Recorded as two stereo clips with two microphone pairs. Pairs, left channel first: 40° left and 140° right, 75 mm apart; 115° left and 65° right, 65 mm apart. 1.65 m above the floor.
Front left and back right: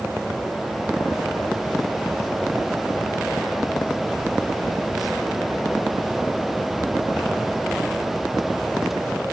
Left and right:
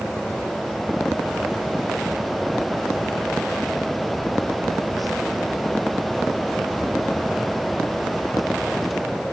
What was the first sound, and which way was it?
Only background noise.